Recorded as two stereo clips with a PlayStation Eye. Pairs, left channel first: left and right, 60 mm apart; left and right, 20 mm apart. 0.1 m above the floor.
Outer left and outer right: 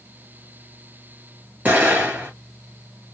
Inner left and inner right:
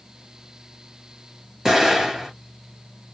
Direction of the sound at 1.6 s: 25° right (ahead or behind).